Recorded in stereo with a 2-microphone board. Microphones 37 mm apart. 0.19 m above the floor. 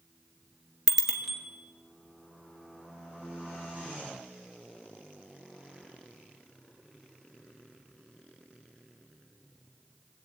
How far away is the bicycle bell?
About 2 m.